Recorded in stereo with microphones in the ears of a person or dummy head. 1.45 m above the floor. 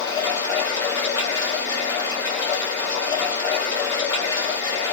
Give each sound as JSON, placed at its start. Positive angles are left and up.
{"t": 0.0, "sound": "running water", "side_deg": 20, "distance_m": 1.4}